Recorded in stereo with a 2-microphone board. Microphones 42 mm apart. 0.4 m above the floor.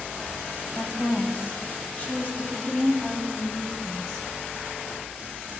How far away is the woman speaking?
About 2.5 m.